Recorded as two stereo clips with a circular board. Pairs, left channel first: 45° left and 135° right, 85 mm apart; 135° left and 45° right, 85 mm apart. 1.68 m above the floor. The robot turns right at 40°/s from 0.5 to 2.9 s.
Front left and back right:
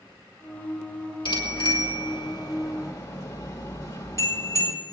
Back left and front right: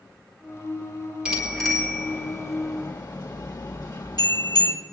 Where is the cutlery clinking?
I don't hear cutlery clinking.